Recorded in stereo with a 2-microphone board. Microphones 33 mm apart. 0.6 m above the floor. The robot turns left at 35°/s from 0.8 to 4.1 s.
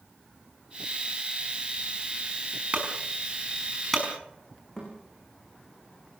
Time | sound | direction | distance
2.7 | a clunk | 35° right (ahead or behind) | 5 m
4.8 | a thud | 25° left (ahead or behind) | 10 m